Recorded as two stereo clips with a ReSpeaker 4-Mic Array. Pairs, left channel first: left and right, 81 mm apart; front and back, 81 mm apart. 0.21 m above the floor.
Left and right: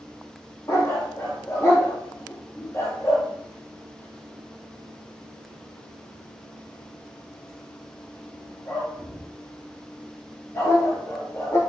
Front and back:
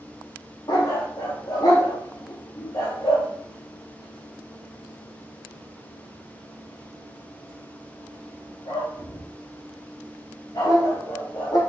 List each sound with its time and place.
0.7 s a dog barking: 35° left, 3 m